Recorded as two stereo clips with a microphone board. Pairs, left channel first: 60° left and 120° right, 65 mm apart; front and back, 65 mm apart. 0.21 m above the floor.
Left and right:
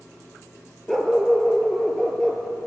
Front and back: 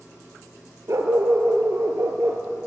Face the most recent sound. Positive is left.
turn(degrees=145)